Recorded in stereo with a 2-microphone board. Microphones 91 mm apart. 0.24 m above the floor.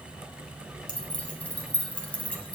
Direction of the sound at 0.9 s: 15° left (ahead or behind).